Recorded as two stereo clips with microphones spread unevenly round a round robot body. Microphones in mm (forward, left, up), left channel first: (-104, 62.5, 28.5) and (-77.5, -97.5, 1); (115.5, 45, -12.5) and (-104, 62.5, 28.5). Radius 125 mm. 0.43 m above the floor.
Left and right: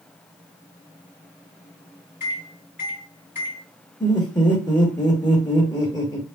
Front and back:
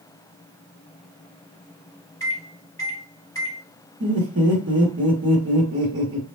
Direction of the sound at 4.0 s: 175° left.